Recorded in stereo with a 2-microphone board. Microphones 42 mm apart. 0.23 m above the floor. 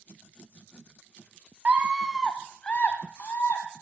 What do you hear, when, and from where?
1.6 s a scream: 35° right (ahead or behind), 1.6 m; by 3.6 s 55° left (ahead or behind), 2.5 m